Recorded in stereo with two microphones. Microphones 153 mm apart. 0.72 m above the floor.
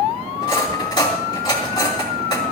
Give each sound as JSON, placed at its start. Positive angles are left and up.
{"t": 0.4, "sound": "cutlery clinking", "side_deg": 30, "distance_m": 3.5}